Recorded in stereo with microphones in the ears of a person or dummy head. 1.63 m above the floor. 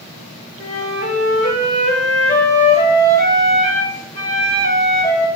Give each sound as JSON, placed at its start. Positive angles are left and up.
{"t": 0.6, "sound": "a flute", "side_deg": 50, "distance_m": 4.0}